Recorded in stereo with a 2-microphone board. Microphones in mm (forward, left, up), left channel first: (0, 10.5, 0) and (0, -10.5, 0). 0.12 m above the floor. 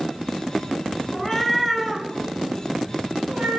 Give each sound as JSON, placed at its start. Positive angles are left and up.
{"t": 1.1, "sound": "a cat meowing", "side_deg": 25, "distance_m": 0.6}